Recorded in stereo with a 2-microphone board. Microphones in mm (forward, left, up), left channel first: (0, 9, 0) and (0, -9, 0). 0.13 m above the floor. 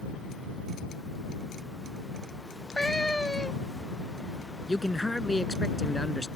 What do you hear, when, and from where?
2.5 s a cat meowing: 45° left (ahead or behind)
4.7 s a man speaking: 25° left (ahead or behind)